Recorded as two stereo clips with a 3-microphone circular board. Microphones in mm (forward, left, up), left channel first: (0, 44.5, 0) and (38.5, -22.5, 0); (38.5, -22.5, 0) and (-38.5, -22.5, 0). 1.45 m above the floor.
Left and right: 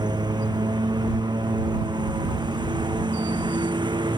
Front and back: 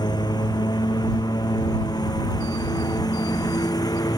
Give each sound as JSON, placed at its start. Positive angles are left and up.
{"t": 0.0, "sound": "a lawn mower", "azimuth_deg": -30}